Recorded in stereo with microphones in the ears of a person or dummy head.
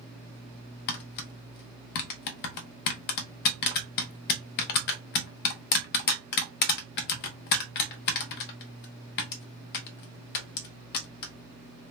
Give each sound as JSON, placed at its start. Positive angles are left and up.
{"t": 0.9, "sound": "tapping", "side_deg": 55, "distance_m": 0.8}